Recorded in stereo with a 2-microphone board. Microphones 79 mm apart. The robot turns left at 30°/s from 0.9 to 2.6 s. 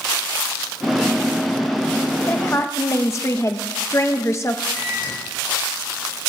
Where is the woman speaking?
30° left (ahead or behind), 0.7 m; by 4.6 s 35° left (ahead or behind), 0.7 m.